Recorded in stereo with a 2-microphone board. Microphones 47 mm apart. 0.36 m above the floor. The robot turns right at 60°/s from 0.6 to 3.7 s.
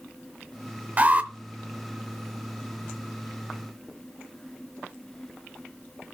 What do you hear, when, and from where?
1.0 s an alarm: 35° right (ahead or behind), 0.6 m; by 1.3 s 30° right (ahead or behind), 0.6 m